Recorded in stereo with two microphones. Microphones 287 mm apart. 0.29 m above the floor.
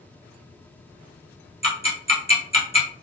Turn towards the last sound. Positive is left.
turn(degrees=20)  # may be behind; listen again after turning